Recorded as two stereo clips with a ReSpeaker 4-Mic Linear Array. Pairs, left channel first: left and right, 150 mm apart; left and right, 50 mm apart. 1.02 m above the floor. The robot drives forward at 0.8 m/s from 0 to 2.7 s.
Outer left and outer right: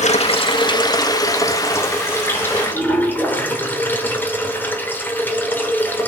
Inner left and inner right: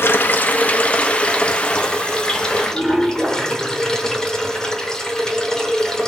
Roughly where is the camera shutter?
No camera shutter in this recording.